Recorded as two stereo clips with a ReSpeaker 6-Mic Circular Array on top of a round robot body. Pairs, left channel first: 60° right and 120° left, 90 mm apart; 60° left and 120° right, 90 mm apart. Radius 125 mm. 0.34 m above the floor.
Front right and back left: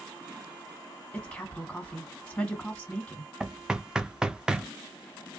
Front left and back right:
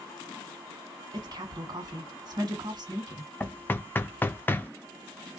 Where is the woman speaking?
140° right, 2.0 m.